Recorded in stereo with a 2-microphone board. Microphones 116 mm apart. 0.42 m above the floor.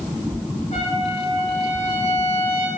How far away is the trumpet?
About 5.5 m.